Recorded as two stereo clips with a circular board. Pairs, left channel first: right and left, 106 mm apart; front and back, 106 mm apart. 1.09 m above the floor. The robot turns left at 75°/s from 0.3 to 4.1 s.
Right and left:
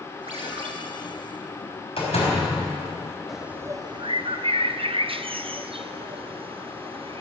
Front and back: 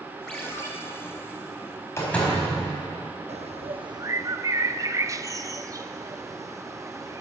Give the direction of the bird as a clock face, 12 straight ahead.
6 o'clock.